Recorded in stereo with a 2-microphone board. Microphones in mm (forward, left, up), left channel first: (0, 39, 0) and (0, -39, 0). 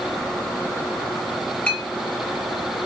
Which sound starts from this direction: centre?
A clink, at 1.7 s.